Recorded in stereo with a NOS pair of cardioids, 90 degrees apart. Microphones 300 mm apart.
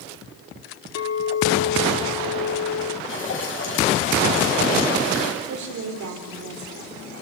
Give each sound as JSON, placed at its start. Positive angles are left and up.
{"t": 0.9, "sound": "a clink", "azimuth_deg": 55, "distance_m": 2.5}
{"t": 3.1, "sound": "dripping", "azimuth_deg": 40, "distance_m": 7.5}
{"t": 5.4, "sound": "a woman speaking", "azimuth_deg": -70, "distance_m": 4.0}